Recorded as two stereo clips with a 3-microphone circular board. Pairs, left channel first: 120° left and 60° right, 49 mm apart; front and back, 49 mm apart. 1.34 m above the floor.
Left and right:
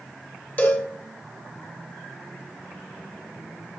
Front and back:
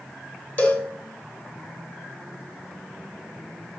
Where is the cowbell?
60° left, 0.8 m.